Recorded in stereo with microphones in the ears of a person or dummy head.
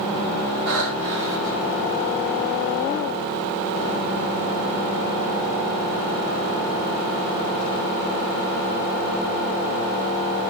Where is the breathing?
80° right, 1.7 m.